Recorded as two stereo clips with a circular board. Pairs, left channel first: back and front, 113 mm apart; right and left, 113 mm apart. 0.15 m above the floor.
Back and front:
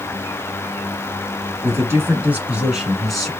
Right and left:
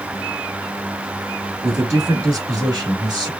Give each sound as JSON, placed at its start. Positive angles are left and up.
{"t": 1.6, "sound": "a man speaking", "azimuth_deg": 45, "distance_m": 1.9}